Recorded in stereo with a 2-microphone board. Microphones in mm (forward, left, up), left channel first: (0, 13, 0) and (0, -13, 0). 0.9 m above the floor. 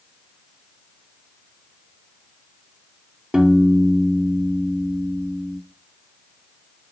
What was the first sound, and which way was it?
A piano, 30° right (ahead or behind).